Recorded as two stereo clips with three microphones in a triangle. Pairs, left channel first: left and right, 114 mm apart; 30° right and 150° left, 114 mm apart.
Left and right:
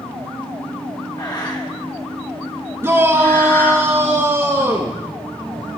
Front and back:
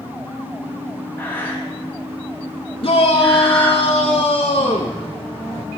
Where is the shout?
30° right, 1.1 m.